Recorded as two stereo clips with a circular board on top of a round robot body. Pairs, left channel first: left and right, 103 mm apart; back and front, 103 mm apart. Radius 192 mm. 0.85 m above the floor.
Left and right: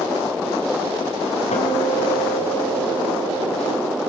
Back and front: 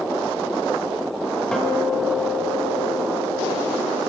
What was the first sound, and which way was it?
A guitar, 95° left.